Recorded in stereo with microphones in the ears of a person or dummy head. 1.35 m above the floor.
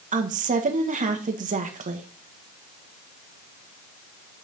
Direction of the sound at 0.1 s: 35° right (ahead or behind).